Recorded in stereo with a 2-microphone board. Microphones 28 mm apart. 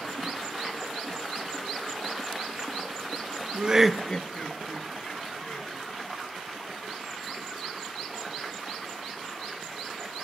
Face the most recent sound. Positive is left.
turn(degrees=80)